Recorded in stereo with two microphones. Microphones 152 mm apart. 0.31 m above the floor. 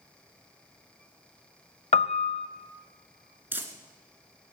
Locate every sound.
1.9 s a piano: 45° left (ahead or behind), 0.6 m
3.5 s crumpling: 15° right (ahead or behind), 1.2 m